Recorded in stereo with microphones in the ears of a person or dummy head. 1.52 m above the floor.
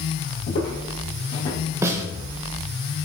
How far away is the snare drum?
About 0.9 m.